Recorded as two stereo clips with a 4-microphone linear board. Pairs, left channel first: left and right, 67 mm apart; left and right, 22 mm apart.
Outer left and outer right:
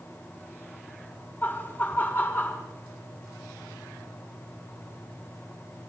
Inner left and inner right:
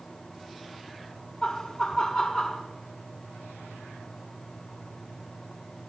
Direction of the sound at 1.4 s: 30° left (ahead or behind).